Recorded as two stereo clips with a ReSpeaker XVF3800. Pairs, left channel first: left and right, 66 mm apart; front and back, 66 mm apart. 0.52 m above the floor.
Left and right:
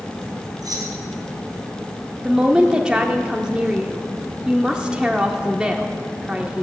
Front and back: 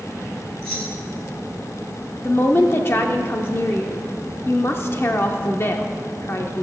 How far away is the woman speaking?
About 0.9 m.